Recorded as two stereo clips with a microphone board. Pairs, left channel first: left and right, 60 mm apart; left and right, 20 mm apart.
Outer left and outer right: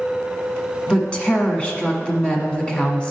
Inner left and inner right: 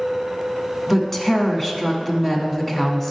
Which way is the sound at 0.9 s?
20° left (ahead or behind).